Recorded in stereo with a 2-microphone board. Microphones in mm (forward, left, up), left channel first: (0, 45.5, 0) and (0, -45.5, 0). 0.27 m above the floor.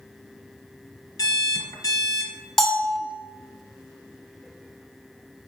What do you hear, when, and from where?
1.2 s an alarm clock: 40° left (ahead or behind), 1.2 m
2.6 s a bell: 5° left (ahead or behind), 1.0 m